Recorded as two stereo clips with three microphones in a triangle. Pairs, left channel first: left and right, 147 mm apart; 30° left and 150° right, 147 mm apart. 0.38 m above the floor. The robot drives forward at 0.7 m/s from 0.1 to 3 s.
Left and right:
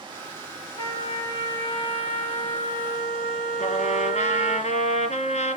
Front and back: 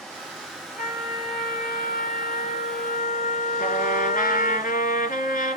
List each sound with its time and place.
0.8 s a trumpet: 30° left, 3 m; by 4.6 s 55° left, 2 m
3.6 s a trumpet: 55° left, 3.5 m